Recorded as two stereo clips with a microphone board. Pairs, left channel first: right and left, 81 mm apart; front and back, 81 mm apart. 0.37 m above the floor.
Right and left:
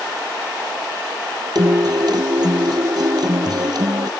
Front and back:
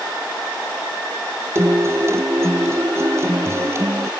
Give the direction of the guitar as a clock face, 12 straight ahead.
8 o'clock.